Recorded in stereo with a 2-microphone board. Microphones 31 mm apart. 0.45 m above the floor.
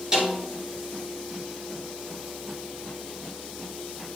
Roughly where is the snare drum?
Centre.